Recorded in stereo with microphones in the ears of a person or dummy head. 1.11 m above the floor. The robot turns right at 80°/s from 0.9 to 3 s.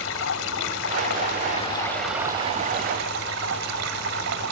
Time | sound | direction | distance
0.0 | running water | 85° left | ?